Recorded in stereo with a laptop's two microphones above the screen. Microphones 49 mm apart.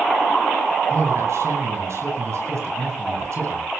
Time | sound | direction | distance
0.9 | a man speaking | 70° right (ahead or behind) | 9 m